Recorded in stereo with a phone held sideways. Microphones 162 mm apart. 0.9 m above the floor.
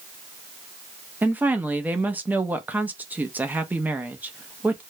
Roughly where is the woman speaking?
Centre.